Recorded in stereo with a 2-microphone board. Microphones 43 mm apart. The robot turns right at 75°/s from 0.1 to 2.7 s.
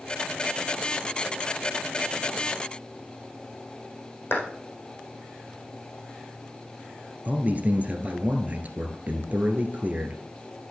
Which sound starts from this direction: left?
A clap, at 4.3 s.